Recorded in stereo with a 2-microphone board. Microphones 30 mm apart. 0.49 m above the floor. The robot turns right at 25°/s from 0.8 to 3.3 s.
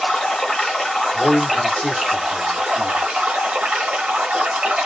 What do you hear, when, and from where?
0.0 s running water: 160° left, 1.1 m; by 4.9 s 135° right, 1.1 m
1.1 s a man speaking: 85° left, 1.1 m; by 3.0 s 130° left, 1.1 m